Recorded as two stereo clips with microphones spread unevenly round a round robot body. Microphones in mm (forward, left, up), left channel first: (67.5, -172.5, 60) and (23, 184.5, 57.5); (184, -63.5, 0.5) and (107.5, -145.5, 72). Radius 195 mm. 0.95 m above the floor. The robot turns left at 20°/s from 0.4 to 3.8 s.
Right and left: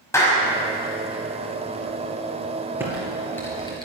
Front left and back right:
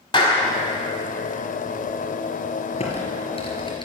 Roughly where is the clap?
Ahead.